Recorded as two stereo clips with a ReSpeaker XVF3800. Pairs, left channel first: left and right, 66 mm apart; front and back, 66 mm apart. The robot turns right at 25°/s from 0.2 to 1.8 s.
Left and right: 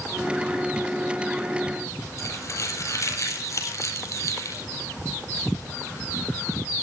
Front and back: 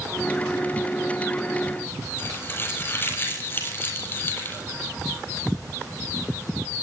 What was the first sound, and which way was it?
Crumpling, 55° left.